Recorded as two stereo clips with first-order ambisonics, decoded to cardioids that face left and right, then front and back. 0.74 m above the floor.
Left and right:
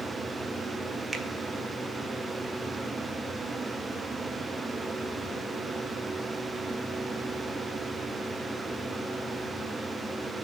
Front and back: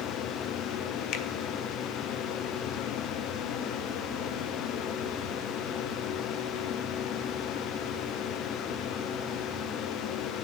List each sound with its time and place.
1.1 s a finger snap: 10° right, 0.6 m